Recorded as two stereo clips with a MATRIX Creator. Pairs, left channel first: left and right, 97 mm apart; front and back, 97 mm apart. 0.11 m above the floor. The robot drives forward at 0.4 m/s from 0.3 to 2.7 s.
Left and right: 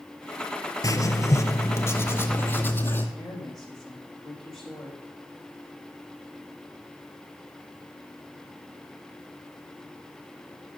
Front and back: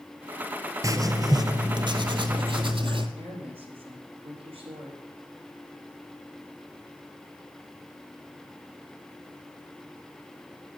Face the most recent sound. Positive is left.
turn(degrees=175)